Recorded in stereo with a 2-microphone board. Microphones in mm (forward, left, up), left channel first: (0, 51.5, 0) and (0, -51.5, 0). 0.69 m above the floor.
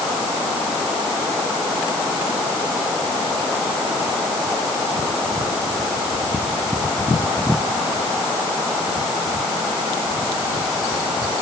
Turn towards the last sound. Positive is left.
No sound to turn to.